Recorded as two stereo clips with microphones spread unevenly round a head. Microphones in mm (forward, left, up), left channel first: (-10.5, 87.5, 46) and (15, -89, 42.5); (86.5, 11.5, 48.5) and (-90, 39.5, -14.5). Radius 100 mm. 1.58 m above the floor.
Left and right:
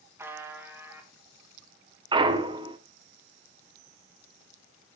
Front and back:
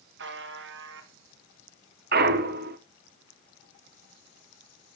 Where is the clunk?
150° right, 1.3 m.